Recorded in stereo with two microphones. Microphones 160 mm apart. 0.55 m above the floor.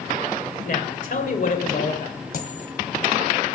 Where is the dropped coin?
60° left (ahead or behind), 1.6 m.